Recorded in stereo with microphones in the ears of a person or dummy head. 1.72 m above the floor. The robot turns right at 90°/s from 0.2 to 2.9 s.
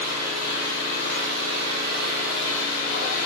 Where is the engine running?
175° left, 3.5 m; by 3.3 s 55° left, 3.5 m.